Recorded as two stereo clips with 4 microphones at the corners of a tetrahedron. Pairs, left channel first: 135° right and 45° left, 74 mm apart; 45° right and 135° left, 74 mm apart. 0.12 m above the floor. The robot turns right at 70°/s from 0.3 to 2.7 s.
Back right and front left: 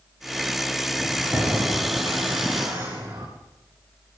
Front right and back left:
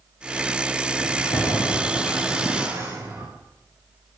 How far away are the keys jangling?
About 9 m.